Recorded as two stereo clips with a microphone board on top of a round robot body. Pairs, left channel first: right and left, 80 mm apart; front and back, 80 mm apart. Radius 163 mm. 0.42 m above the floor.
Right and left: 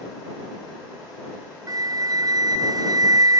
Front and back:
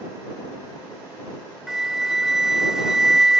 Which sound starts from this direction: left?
A flute, at 1.7 s.